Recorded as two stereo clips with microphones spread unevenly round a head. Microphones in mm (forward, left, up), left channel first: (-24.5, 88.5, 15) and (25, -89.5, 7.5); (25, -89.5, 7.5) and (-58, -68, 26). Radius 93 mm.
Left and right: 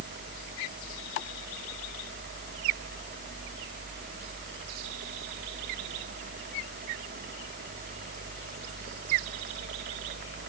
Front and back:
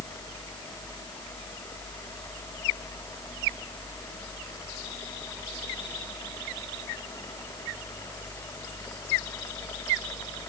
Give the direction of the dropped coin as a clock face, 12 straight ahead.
I don't hear a dropped coin.